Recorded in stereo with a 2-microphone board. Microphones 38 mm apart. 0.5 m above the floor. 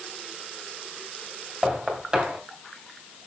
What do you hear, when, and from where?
1.6 s knocking: 25° right (ahead or behind), 3 m